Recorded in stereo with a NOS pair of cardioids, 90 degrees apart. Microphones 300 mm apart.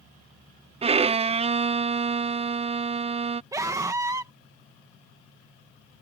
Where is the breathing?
No breathing in this recording.